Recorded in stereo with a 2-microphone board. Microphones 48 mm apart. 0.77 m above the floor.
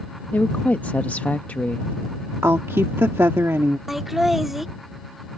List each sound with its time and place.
0.3 s a woman speaking: 35° left (ahead or behind)
2.4 s a woman speaking: 70° right (ahead or behind)
3.9 s laughter: 5° right (ahead or behind)